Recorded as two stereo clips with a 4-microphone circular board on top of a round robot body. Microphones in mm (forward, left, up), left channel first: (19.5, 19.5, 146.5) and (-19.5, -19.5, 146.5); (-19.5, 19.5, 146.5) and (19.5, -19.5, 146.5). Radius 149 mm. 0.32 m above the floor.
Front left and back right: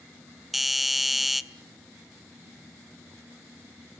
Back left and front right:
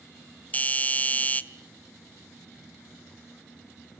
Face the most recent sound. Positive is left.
turn(degrees=140)